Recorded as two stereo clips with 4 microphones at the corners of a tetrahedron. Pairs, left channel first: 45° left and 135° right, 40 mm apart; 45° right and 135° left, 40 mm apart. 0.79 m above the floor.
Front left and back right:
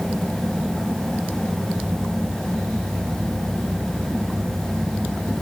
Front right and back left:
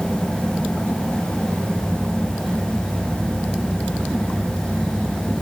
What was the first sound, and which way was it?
Only background noise.